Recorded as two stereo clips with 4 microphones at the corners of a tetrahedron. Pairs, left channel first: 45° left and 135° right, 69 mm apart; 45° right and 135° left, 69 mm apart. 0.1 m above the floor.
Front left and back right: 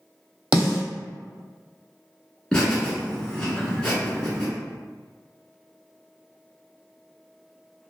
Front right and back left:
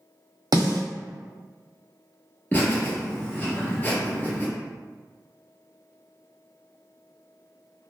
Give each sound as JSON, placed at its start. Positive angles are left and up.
{"t": 0.5, "sound": "a snare drum", "azimuth_deg": 150, "distance_m": 0.9}
{"t": 2.5, "sound": "laughter", "azimuth_deg": -20, "distance_m": 1.4}